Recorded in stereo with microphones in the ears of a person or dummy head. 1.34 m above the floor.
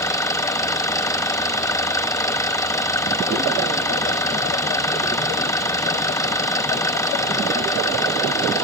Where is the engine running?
15° left (ahead or behind).